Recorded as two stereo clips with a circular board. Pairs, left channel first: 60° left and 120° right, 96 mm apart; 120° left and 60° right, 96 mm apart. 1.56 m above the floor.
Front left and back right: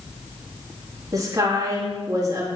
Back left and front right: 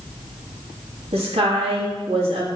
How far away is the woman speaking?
About 3 m.